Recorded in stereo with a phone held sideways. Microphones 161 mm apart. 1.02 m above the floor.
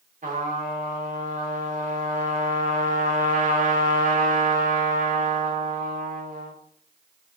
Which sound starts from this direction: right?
A trumpet, at 0.2 s.